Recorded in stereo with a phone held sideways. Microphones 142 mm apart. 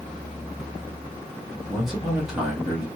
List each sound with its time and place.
1.7 s a man speaking: centre (ahead or behind), 1.4 m